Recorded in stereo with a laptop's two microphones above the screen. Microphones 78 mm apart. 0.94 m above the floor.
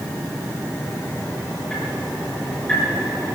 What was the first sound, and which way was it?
Ticking, 10° left (ahead or behind).